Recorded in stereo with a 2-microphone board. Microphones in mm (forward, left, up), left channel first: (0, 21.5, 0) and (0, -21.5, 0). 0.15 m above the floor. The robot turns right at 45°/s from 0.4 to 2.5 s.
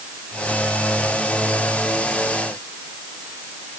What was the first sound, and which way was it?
Only background noise.